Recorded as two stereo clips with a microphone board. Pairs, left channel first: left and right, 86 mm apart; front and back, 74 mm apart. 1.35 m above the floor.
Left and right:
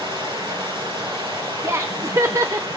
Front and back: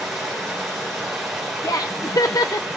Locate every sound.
0.0 s running water: 90° right, 5.5 m
1.6 s laughter: 35° right, 0.5 m